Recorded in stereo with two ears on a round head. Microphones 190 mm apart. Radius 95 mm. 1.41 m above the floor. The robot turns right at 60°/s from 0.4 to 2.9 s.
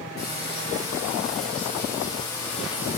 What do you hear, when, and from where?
0.2 s frying: 45° left, 6 m; by 3.0 s 165° right, 6 m